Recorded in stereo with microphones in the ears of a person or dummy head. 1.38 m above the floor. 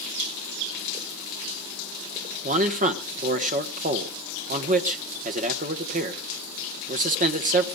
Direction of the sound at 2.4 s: 40° right (ahead or behind).